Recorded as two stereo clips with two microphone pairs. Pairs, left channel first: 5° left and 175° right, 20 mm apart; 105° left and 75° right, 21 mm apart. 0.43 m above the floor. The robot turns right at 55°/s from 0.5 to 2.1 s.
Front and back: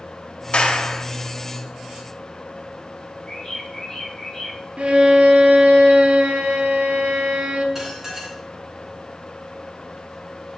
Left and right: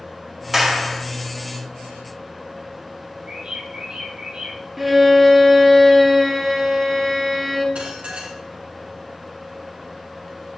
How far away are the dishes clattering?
About 4 m.